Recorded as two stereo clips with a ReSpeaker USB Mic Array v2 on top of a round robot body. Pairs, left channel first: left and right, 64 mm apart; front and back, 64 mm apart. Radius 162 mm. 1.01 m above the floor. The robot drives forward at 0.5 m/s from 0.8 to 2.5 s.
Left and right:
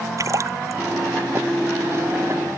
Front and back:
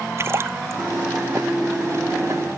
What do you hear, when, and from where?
0.2 s a splash: 130° right